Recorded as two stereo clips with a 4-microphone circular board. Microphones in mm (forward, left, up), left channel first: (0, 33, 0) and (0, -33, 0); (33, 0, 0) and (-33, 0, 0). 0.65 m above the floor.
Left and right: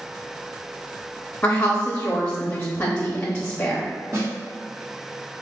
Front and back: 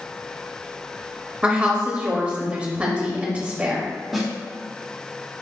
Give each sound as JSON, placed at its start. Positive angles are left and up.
{"t": 1.4, "sound": "a woman speaking", "azimuth_deg": 135, "distance_m": 0.8}
{"t": 4.1, "sound": "a snare drum", "azimuth_deg": -90, "distance_m": 1.3}